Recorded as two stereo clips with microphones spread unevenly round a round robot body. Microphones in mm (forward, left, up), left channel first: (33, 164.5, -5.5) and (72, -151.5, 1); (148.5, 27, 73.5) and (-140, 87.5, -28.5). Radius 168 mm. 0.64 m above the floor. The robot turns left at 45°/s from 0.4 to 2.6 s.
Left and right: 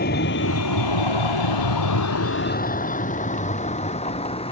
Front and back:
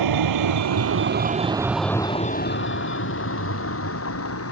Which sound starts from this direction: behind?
A vehicle, at 0.0 s.